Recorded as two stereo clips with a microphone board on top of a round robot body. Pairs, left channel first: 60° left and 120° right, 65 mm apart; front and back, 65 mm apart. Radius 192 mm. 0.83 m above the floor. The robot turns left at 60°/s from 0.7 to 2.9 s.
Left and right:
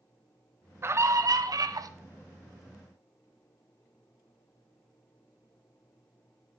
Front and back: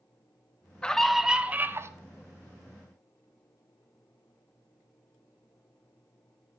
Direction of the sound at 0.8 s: 75° right.